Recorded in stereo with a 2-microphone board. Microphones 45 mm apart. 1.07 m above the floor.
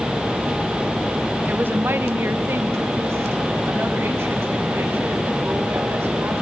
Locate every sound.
1.5 s a woman speaking: 40° right (ahead or behind), 0.6 m; by 6.3 s 60° right (ahead or behind), 3 m